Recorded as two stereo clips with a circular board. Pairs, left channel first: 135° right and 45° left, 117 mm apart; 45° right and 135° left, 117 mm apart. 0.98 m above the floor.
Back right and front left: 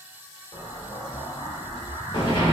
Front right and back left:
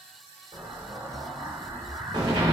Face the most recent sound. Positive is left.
turn(degrees=180)